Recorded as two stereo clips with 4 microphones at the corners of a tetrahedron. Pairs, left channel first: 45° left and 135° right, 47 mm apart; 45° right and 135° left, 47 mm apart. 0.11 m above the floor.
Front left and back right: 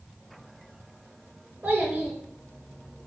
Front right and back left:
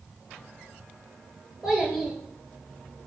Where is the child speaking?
145° right, 1.0 m.